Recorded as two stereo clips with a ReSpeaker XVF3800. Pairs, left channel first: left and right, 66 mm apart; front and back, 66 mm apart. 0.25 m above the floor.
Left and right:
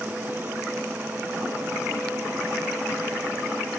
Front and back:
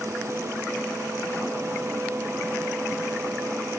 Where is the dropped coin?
No dropped coin in this recording.